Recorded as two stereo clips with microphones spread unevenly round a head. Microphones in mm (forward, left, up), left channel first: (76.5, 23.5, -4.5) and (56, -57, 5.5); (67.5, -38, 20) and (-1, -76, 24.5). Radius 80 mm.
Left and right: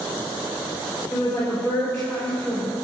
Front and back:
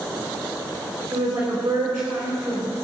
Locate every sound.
1.1 s a woman speaking: 150° left, 4.5 m